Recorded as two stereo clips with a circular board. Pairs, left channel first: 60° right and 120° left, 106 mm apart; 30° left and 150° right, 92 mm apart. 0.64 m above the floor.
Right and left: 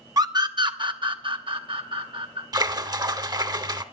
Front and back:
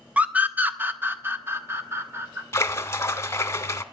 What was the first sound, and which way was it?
A scream, 140° left.